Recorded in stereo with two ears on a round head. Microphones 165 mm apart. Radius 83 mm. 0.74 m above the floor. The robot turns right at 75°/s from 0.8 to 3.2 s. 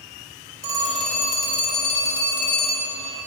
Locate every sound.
0.6 s a phone ringing: 20° right, 2.5 m; by 3.0 s 145° left, 2.5 m